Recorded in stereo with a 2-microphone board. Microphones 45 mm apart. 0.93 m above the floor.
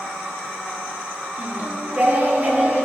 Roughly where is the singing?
Right.